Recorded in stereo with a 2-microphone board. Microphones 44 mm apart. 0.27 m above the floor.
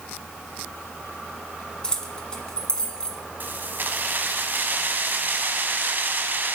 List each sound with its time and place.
1.8 s keys jangling: 20° left (ahead or behind), 1.8 m
3.4 s keys jangling: 45° right (ahead or behind), 1.4 m